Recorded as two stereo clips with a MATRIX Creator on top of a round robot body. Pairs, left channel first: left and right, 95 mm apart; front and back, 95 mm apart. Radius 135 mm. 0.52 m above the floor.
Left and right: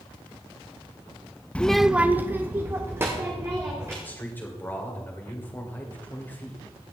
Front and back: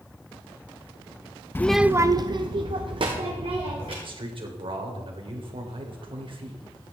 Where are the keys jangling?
I don't hear keys jangling.